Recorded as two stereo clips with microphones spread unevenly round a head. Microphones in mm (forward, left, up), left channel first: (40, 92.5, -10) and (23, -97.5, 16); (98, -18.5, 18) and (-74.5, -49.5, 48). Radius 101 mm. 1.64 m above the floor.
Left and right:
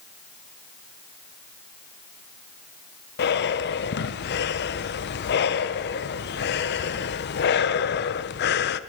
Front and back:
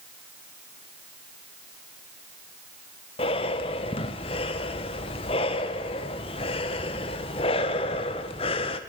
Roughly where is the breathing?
Left.